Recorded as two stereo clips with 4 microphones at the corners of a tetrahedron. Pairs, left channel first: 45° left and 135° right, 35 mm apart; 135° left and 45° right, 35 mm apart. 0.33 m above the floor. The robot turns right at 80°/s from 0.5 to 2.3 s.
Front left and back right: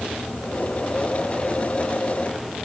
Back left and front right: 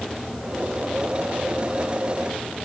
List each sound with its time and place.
Only background noise.